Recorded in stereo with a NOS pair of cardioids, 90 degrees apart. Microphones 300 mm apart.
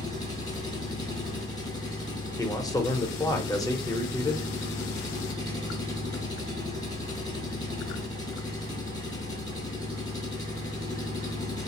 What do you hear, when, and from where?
0.0 s an engine running: 15° left, 0.9 m
2.4 s a man speaking: 10° left, 0.6 m